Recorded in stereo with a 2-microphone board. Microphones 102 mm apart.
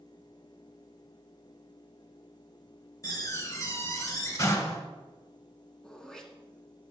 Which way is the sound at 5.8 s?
5° left (ahead or behind).